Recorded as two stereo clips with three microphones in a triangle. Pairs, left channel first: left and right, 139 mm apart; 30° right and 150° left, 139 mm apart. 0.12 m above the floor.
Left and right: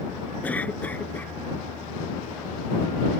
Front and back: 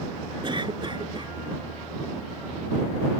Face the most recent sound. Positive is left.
turn(degrees=160)